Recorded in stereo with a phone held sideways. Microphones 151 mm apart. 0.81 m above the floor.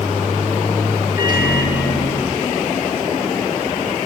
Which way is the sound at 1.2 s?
75° left (ahead or behind).